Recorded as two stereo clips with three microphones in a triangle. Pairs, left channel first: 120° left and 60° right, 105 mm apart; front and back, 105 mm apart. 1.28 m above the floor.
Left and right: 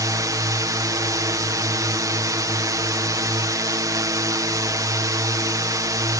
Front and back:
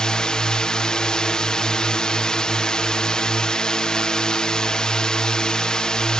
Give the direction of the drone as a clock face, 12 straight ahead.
3 o'clock.